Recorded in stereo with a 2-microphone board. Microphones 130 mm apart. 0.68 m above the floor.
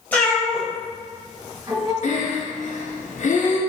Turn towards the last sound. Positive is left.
turn(degrees=70)  # may be behind; listen again after turning